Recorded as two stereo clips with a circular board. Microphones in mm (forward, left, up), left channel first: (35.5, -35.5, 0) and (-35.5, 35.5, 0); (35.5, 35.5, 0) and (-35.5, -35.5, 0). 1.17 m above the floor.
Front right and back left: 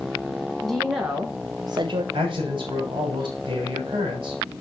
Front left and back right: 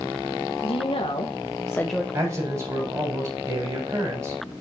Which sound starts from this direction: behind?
A man speaking, at 2.1 s.